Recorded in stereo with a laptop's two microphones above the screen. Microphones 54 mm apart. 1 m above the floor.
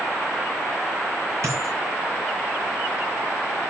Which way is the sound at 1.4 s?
55° right (ahead or behind).